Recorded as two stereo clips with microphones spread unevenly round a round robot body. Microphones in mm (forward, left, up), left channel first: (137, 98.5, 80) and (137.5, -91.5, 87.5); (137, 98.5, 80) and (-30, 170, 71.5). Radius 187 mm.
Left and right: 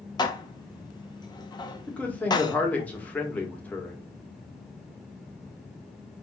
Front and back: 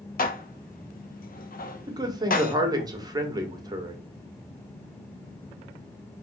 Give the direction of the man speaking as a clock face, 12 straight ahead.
7 o'clock.